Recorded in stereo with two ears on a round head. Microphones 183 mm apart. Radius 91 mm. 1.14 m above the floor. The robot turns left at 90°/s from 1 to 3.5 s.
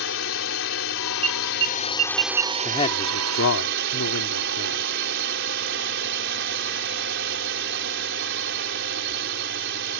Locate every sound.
0.0 s a drone: 110° left; by 10.0 s 115° right
1.2 s an alarm: 30° right (ahead or behind); by 2.5 s 35° right (ahead or behind)
2.6 s a man speaking: 165° left; by 4.9 s 90° left